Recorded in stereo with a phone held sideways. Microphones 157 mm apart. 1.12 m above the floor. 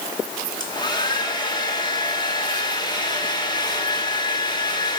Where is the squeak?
No squeak in this recording.